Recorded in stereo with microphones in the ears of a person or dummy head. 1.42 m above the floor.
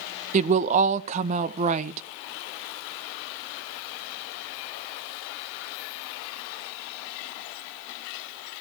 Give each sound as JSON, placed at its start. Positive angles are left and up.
{"t": 0.3, "sound": "a woman speaking", "side_deg": -40, "distance_m": 0.7}